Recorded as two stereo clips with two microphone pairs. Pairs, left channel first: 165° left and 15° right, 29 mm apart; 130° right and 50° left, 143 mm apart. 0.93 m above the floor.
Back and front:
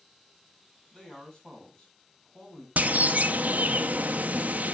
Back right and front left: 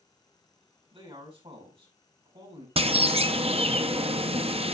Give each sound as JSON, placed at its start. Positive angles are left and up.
{"t": 0.9, "sound": "a man speaking", "azimuth_deg": 100, "distance_m": 6.5}
{"t": 2.8, "sound": "a bird", "azimuth_deg": 5, "distance_m": 0.7}